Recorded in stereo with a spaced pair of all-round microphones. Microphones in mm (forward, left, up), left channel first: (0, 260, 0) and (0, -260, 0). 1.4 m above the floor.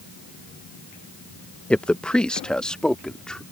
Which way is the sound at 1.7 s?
Centre (ahead or behind).